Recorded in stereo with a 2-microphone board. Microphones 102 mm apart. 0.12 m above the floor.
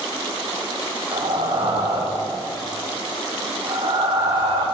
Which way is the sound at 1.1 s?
50° right (ahead or behind).